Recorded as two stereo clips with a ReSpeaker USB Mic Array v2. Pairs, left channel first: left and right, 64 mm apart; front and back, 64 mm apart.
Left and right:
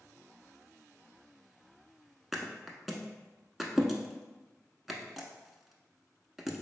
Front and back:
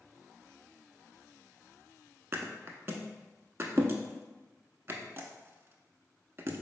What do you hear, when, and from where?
2.3 s a thud: 175° right, 0.5 m